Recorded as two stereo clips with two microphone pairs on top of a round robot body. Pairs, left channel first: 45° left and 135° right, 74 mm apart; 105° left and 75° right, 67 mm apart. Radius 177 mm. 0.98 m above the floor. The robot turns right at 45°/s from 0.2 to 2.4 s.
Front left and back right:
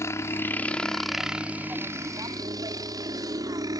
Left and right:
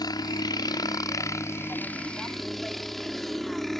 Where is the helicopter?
95° left; by 3.8 s 165° right.